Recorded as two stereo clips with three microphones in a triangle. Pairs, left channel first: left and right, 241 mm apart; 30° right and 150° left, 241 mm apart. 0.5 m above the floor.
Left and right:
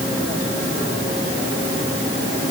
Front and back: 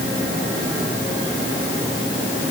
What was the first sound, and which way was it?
Only background noise.